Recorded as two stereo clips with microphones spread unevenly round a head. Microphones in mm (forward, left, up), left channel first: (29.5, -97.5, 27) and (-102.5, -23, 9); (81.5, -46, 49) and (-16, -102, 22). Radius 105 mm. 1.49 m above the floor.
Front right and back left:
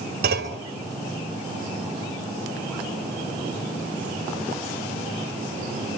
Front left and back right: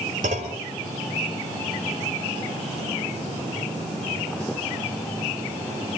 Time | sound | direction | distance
0.2 | a clunk | 165° left | 3 m